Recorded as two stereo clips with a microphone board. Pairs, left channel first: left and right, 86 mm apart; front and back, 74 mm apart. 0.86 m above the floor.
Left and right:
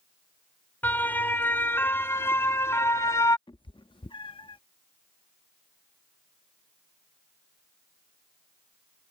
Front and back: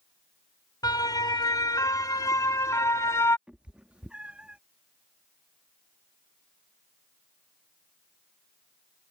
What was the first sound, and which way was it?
A siren, 20° left.